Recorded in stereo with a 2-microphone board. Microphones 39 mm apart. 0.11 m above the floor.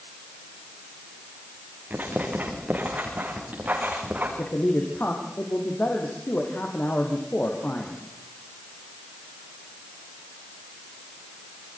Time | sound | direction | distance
1.9 | writing | 40° right (ahead or behind) | 8 m
4.4 | a man speaking | 55° left (ahead or behind) | 5 m